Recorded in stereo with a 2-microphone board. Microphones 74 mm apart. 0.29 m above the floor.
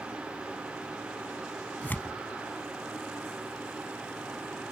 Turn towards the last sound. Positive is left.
turn(degrees=25)  # may be behind; listen again after turning